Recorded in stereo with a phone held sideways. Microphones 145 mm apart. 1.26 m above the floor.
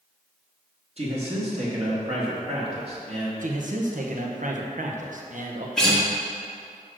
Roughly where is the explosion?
I don't hear an explosion.